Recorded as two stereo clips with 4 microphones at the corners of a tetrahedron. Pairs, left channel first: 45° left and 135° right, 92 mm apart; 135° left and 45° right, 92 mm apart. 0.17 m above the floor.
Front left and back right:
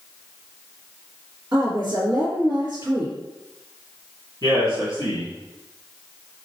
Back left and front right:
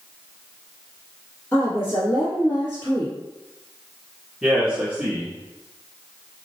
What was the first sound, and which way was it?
A woman speaking, 170° right.